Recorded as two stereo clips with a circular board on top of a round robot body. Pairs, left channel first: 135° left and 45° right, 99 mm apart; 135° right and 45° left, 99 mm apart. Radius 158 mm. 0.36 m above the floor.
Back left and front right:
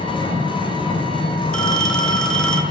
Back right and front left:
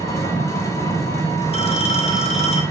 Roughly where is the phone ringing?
Behind right.